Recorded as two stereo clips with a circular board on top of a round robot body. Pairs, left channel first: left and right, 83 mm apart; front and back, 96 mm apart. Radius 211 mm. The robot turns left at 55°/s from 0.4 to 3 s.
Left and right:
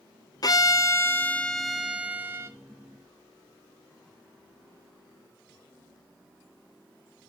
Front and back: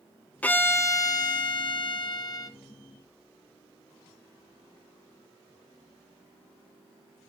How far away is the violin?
About 0.7 m.